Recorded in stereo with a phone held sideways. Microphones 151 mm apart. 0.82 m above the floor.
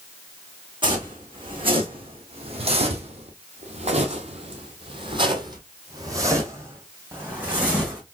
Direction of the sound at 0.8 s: 35° right (ahead or behind).